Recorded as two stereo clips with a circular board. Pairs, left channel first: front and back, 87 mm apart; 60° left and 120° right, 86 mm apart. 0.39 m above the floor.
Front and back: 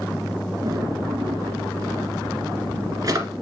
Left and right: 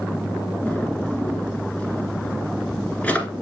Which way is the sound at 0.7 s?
135° left.